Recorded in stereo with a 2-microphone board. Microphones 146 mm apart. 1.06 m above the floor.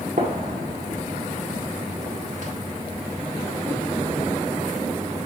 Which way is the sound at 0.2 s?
60° right (ahead or behind).